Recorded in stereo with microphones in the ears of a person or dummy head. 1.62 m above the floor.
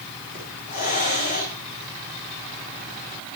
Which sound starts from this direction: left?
A hiss, at 0.3 s.